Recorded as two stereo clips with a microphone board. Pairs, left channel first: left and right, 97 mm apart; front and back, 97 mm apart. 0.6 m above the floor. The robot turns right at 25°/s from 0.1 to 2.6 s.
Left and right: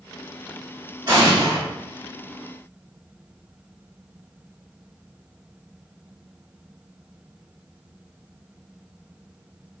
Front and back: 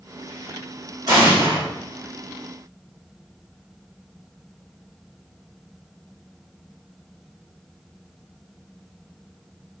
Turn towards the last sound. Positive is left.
turn(degrees=-100)